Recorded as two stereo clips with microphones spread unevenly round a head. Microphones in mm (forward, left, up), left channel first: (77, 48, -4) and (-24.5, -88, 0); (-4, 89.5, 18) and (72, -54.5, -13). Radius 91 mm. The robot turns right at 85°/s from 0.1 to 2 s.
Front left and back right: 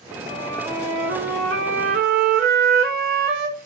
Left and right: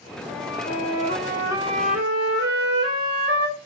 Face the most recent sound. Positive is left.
turn(degrees=-100)